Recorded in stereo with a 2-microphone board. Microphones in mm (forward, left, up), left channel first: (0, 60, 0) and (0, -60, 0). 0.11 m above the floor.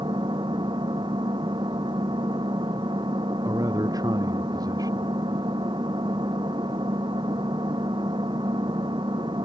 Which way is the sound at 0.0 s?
40° right (ahead or behind).